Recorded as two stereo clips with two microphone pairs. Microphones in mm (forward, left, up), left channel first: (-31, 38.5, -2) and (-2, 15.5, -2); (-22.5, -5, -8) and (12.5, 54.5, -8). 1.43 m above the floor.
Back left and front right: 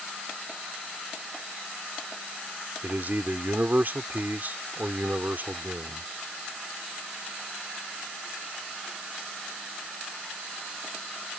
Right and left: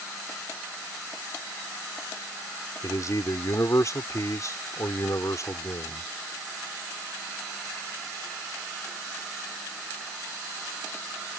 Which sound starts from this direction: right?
A man speaking, at 2.8 s.